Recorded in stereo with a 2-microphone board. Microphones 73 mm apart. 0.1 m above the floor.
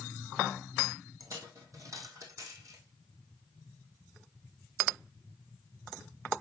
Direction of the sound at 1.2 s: 50° right (ahead or behind).